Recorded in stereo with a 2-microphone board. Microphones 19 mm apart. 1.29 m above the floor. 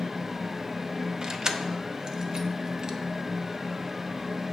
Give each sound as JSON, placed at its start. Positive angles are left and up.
{"t": 1.2, "sound": "keys jangling", "side_deg": -40, "distance_m": 0.8}